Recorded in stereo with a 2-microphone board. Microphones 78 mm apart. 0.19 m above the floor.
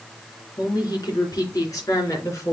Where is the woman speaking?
55° left (ahead or behind), 3 m; by 2.5 s 40° left (ahead or behind), 2.5 m.